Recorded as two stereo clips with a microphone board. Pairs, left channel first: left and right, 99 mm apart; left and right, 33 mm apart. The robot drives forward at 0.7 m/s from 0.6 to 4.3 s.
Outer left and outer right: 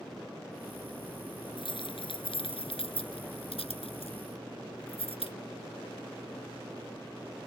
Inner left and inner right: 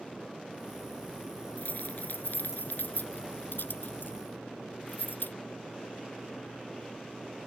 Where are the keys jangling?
60° left (ahead or behind); by 5.3 s 75° left (ahead or behind).